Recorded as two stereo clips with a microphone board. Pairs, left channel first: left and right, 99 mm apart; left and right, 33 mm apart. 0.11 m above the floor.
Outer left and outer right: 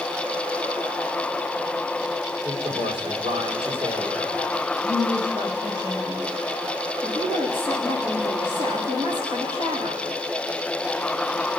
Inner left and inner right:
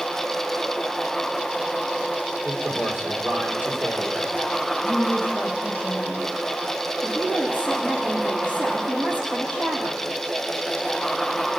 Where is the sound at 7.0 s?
50° right (ahead or behind), 6.5 m.